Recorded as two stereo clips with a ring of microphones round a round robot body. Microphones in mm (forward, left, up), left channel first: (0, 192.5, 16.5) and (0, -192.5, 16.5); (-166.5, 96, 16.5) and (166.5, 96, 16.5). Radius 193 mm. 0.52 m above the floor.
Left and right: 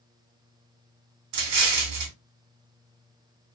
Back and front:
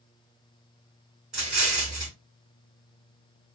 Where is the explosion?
90° right, 1.2 m.